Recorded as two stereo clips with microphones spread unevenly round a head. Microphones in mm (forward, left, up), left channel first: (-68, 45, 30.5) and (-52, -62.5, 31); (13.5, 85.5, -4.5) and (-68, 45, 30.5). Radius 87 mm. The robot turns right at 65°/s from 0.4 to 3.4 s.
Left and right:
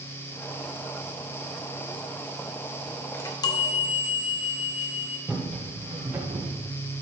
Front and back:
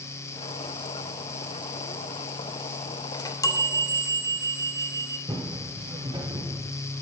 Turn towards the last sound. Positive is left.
turn(degrees=-145)